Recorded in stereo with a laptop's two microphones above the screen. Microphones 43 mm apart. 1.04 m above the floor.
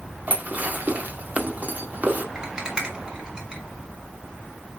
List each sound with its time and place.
0.3 s dishes clattering: 40° right (ahead or behind), 1.5 m
2.4 s a rattle: 20° right (ahead or behind), 3 m